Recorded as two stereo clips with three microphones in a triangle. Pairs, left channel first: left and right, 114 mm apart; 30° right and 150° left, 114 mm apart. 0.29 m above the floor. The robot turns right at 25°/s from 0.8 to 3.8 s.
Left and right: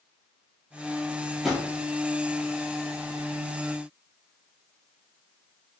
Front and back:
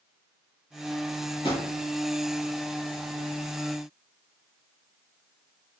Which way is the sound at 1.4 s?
Straight ahead.